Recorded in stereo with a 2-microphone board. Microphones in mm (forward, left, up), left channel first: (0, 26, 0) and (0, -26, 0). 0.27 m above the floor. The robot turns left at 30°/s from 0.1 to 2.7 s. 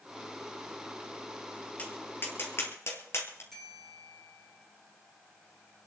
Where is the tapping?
30° left (ahead or behind), 3 m; by 3.4 s 55° left (ahead or behind), 3 m.